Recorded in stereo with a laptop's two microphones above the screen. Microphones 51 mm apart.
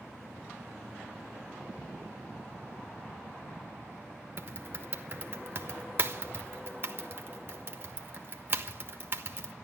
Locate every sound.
4.4 s typing on a keyboard: 40° right (ahead or behind), 1.3 m